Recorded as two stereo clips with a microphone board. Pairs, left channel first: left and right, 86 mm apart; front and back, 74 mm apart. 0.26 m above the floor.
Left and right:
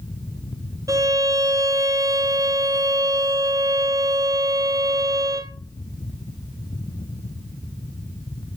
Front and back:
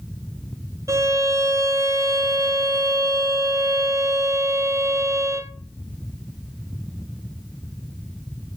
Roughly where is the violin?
Behind right.